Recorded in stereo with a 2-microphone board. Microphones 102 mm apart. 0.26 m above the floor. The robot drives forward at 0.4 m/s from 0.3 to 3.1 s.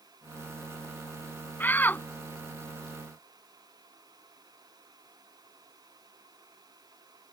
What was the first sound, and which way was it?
A shout, 20° left (ahead or behind).